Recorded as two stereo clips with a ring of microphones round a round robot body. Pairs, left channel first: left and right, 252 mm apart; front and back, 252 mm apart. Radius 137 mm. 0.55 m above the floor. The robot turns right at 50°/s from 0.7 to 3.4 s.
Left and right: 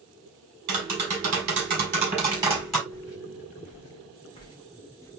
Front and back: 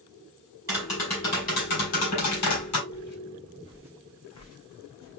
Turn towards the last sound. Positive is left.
turn(degrees=10)